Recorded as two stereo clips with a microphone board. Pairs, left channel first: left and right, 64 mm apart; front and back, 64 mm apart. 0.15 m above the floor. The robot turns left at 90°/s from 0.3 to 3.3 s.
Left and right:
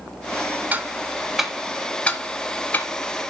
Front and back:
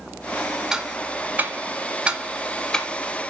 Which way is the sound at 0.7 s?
110° right.